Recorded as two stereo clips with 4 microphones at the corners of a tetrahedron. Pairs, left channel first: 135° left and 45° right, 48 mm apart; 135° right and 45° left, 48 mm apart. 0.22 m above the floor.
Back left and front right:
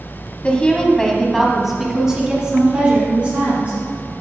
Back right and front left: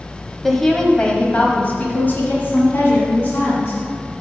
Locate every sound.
0.4 s a woman speaking: 140° left, 1.3 m; by 4.1 s 105° right, 3 m